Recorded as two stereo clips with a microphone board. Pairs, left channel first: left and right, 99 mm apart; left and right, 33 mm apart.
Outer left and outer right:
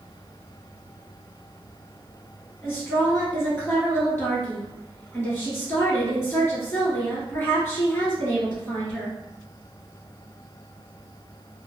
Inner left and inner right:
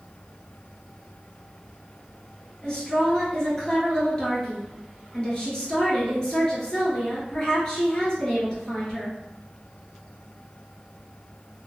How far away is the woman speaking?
About 1.4 m.